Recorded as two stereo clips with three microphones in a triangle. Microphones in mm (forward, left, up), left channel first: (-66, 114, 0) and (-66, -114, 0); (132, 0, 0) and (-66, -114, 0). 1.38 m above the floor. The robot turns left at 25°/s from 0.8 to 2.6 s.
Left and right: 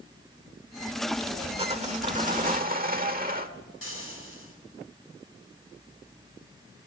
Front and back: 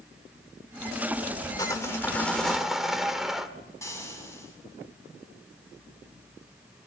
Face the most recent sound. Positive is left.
turn(degrees=105)